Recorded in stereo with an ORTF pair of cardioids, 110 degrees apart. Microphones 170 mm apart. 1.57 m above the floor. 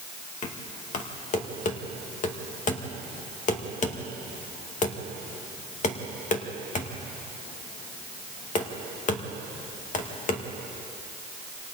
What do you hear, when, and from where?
0.4 s knocking: 45° left, 2 m